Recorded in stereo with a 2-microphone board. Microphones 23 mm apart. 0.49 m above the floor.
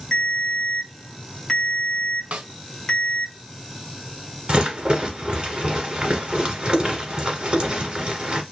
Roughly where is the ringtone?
Left.